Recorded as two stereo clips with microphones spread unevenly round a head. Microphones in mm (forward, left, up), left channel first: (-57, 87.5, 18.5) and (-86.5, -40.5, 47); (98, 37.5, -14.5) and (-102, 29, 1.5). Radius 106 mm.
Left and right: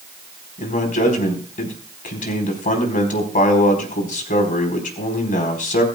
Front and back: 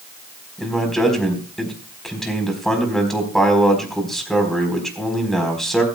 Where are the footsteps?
No footsteps in this recording.